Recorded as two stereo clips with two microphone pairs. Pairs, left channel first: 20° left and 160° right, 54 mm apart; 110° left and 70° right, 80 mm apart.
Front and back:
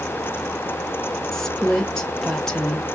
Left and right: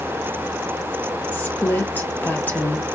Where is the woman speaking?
95° left, 1.0 m.